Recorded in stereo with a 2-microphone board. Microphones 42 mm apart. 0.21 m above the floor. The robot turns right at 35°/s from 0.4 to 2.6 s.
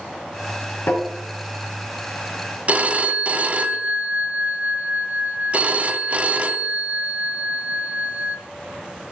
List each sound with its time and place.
0.9 s tapping: 55° left (ahead or behind), 3 m
2.7 s a phone ringing: 35° right (ahead or behind), 0.7 m